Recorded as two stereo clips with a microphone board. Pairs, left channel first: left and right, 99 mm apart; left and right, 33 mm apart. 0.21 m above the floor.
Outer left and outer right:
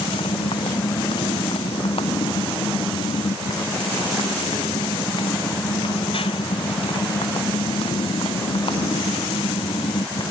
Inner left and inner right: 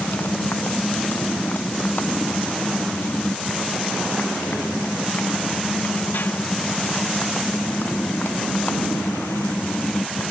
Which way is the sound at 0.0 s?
65° left (ahead or behind).